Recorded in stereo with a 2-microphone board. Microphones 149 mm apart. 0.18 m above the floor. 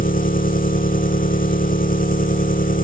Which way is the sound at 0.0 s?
70° left (ahead or behind).